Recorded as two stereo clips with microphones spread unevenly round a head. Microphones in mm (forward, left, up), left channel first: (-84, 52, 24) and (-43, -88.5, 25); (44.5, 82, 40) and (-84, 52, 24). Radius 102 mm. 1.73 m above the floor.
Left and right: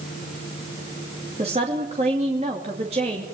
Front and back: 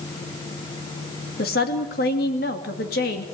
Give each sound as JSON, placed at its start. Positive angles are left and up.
{"t": 1.4, "sound": "a woman speaking", "azimuth_deg": -10, "distance_m": 2.5}